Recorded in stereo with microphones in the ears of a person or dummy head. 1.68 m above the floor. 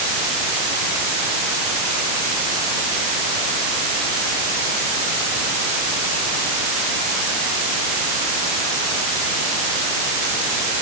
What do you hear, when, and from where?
Only background noise.